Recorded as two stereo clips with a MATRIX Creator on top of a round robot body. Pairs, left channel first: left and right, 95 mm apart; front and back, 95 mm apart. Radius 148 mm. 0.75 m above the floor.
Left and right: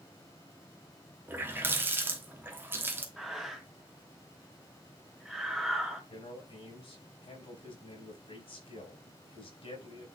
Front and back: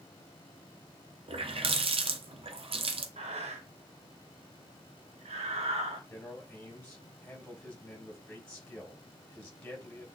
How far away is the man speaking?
About 4 m.